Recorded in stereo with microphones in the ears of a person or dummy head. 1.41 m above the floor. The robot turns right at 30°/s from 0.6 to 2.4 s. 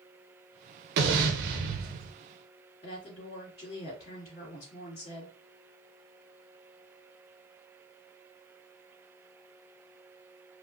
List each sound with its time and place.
1.0 s an explosion: 95° right, 0.6 m; by 2.1 s 60° right, 0.6 m
2.8 s a woman speaking: 50° left (ahead or behind), 2.5 m